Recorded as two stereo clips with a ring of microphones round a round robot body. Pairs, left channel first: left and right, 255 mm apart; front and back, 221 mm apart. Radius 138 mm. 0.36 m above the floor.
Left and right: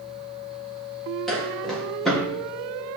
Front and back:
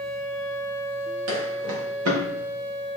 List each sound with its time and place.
1.3 s footsteps: straight behind, 4 m